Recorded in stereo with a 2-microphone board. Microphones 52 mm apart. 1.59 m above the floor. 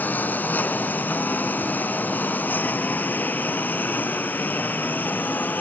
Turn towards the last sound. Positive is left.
turn(degrees=35)  # may be behind; listen again after turning